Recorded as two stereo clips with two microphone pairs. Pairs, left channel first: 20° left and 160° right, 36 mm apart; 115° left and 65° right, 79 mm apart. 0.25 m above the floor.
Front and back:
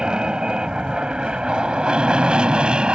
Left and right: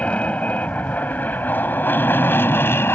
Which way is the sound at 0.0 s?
165° left.